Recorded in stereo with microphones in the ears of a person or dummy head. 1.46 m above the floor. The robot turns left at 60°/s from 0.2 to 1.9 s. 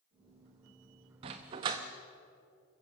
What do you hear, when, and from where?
1.2 s a dog barking: 20° right (ahead or behind), 0.8 m; by 1.8 s 15° right (ahead or behind), 0.8 m